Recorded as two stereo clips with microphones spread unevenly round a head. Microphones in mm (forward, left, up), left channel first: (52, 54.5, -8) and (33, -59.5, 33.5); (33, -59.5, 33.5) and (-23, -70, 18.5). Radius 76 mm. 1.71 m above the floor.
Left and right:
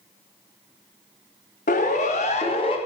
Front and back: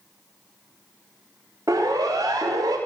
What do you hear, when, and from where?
1.7 s a siren: 120° left, 3 m; by 2.8 s 140° left, 2.5 m